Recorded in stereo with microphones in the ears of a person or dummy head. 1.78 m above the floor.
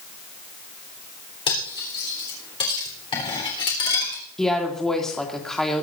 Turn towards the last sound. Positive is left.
turn(degrees=5)  # may be behind; listen again after turning